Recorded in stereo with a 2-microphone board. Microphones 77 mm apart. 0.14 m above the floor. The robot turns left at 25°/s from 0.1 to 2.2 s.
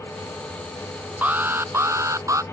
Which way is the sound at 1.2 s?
20° right (ahead or behind).